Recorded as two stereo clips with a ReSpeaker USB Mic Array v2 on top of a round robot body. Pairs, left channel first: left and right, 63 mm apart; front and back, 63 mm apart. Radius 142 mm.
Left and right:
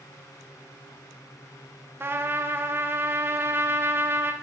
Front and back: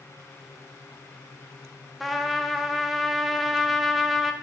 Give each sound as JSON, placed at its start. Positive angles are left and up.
{"t": 2.0, "sound": "a trumpet", "azimuth_deg": -90, "distance_m": 0.9}